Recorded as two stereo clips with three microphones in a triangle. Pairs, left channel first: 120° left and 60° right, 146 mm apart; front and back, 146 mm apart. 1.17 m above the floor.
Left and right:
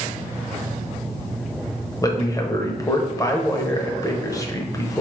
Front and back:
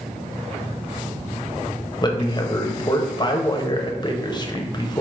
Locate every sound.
2.0 s a man speaking: 60° left, 0.5 m